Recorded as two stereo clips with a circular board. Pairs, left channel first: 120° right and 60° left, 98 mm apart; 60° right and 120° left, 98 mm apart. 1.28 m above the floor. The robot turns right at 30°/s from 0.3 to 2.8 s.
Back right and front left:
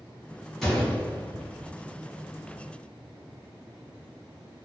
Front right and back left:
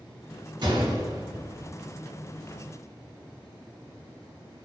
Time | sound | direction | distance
0.6 | a gunshot | 155° left | 1.0 m